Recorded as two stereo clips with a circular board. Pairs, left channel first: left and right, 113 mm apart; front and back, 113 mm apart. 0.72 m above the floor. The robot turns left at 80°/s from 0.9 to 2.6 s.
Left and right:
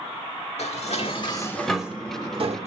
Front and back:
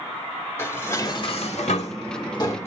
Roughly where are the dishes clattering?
Left.